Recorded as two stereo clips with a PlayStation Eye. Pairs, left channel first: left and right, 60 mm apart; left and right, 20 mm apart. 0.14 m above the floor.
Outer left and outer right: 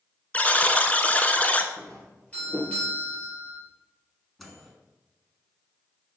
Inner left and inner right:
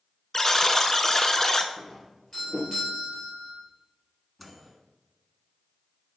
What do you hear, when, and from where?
0.3 s a buzzer: 25° left (ahead or behind), 0.6 m
1.8 s a doorbell: 20° left (ahead or behind), 3 m
4.4 s a microwave: centre (ahead or behind), 1.1 m